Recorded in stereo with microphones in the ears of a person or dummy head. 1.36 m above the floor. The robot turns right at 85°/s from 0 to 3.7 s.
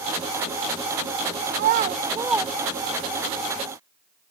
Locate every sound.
1.5 s a child speaking: 50° right (ahead or behind), 0.5 m; by 3.3 s 45° left (ahead or behind), 0.5 m